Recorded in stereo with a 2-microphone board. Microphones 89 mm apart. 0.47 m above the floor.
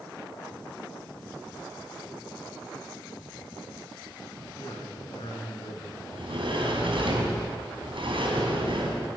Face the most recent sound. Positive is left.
turn(degrees=-75)  # may be behind; listen again after turning